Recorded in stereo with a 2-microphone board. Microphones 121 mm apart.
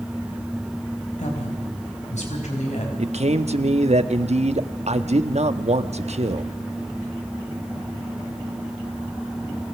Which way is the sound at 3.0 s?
65° right (ahead or behind).